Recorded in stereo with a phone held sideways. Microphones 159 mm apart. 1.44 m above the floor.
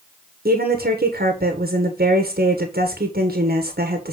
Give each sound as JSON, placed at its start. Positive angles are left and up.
{"t": 0.5, "sound": "a woman speaking", "side_deg": -75, "distance_m": 1.3}